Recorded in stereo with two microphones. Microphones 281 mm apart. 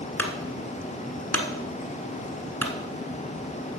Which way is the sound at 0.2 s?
5° left (ahead or behind).